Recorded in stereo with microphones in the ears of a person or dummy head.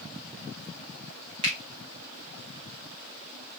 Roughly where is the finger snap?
Right.